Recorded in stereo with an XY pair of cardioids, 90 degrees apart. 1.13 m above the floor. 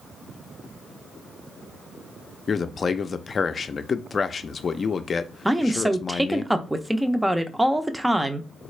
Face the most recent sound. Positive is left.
turn(degrees=-10)